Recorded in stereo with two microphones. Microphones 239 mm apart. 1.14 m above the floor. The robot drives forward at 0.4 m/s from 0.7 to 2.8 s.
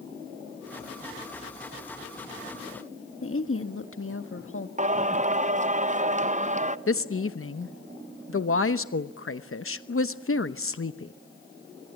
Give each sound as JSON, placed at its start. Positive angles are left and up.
{"t": 3.2, "sound": "a woman speaking", "side_deg": 60, "distance_m": 1.6}
{"t": 4.8, "sound": "singing", "side_deg": -30, "distance_m": 0.6}
{"t": 6.9, "sound": "a woman speaking", "side_deg": 60, "distance_m": 0.9}